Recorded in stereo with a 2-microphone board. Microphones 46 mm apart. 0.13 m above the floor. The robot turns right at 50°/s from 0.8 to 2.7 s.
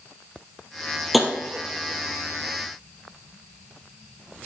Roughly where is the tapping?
Centre.